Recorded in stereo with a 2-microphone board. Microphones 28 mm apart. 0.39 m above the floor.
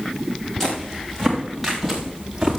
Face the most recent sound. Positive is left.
turn(degrees=-5)  # may be behind; listen again after turning